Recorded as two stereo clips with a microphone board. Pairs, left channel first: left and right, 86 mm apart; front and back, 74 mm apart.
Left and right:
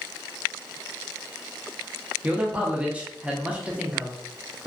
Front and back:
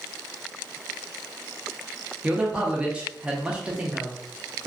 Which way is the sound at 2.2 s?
135° right.